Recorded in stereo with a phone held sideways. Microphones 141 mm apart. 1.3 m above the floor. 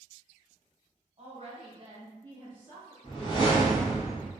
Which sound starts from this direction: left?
A whoosh, at 3.0 s.